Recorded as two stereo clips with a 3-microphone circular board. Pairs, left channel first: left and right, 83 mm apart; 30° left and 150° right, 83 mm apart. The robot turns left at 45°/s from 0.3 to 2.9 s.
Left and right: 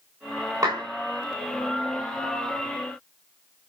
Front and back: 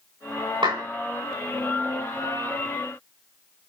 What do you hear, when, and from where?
0.6 s a clap: 140° right, 8.5 m; by 0.8 s 150° right, 8.5 m